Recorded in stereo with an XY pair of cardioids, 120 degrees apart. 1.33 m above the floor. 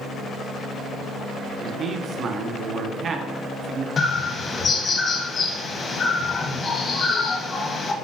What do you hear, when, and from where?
1.6 s a man speaking: 45° right, 1.0 m
4.0 s a bird: 40° left, 1.2 m